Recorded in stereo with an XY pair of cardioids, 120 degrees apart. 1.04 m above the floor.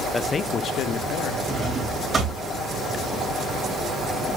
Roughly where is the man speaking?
Ahead.